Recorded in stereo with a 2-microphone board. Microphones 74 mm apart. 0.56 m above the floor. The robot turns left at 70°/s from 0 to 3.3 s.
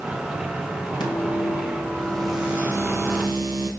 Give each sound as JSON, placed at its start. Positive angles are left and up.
{"t": 1.0, "sound": "a microwave", "azimuth_deg": 90, "distance_m": 3.5}